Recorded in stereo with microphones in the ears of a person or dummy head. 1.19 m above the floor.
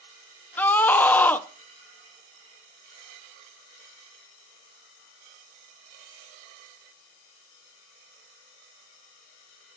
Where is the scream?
10° left (ahead or behind), 0.7 m.